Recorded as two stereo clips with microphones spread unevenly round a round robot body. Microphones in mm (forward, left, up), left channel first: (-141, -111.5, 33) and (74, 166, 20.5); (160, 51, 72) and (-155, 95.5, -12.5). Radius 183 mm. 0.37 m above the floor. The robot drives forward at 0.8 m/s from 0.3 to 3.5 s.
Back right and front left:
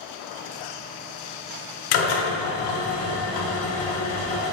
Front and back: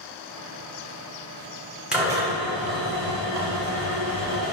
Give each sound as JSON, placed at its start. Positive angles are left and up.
{"t": 1.9, "sound": "a drill", "azimuth_deg": -110, "distance_m": 1.4}